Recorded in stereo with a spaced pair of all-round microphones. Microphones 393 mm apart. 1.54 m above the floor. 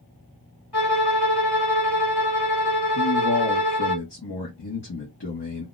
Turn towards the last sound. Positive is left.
turn(degrees=70)  # may be behind; listen again after turning